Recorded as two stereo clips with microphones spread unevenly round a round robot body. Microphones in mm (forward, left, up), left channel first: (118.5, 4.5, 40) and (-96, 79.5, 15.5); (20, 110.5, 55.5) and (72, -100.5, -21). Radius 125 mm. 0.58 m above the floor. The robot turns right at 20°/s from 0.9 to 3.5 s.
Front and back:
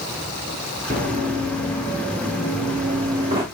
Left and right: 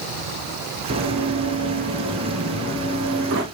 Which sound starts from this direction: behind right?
Running footsteps, at 0.9 s.